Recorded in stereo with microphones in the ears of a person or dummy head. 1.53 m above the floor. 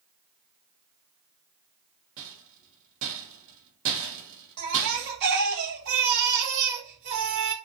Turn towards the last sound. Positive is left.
turn(degrees=-60)  # may be behind; listen again after turning